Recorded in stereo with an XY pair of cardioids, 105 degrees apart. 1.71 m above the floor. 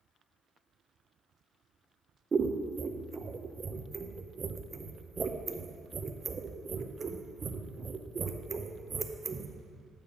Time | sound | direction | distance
2.3 | scissors | 30° right | 0.7 m